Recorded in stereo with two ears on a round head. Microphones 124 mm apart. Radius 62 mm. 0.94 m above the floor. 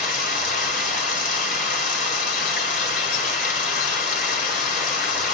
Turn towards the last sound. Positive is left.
turn(degrees=60)  # may be behind; listen again after turning